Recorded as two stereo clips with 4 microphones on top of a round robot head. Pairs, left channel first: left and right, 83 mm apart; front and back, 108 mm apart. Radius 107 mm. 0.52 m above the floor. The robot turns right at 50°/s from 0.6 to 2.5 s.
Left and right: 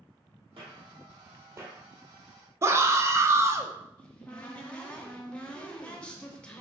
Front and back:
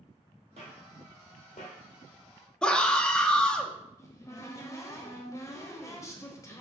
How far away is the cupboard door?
About 1.0 m.